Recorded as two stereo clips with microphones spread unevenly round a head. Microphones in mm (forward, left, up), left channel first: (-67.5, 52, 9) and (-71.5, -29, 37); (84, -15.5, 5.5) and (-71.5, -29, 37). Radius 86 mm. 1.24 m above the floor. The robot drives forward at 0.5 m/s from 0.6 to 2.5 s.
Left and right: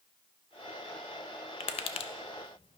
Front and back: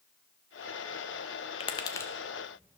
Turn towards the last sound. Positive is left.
turn(degrees=110)